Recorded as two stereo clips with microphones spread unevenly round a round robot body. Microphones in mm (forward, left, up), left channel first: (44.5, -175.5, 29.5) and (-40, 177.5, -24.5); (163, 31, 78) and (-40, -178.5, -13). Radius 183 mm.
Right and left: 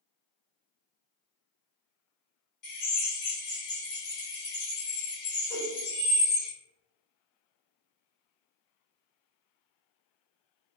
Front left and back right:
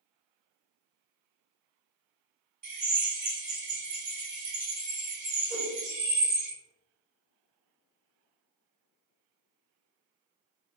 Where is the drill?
110° right, 1.8 m.